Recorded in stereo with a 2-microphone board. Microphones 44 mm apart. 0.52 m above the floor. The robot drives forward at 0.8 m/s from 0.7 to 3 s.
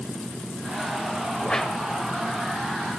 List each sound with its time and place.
1.4 s a whoosh: 20° left (ahead or behind), 0.7 m; by 1.8 s 15° left (ahead or behind), 0.9 m